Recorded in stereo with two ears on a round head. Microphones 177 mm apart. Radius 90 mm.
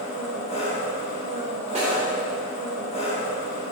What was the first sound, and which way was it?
An engine running, 35° left (ahead or behind).